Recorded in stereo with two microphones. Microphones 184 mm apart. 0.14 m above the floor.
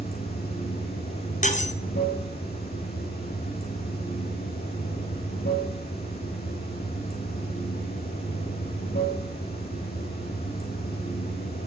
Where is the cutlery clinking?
40° left (ahead or behind), 1.1 m.